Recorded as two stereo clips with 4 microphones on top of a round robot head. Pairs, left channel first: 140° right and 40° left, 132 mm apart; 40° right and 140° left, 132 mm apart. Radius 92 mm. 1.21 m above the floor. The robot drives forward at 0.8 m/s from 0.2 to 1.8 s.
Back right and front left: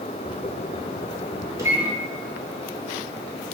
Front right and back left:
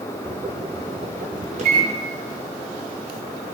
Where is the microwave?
105° left, 0.8 m; by 1.9 s 115° left, 0.8 m.